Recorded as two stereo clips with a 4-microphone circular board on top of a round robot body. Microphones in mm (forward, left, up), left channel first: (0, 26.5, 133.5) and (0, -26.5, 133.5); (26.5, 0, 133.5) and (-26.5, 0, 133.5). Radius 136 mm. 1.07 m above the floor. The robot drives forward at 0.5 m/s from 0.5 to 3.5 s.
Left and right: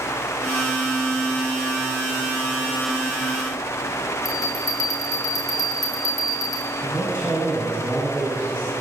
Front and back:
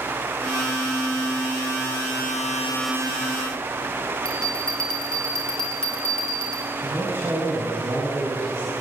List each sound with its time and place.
4.2 s a bell: 75° left, 2.5 m
6.8 s a man speaking: 155° left, 9.5 m